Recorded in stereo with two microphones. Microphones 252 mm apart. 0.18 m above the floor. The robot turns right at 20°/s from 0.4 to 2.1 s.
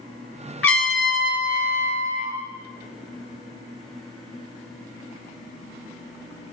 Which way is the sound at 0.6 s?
60° left (ahead or behind).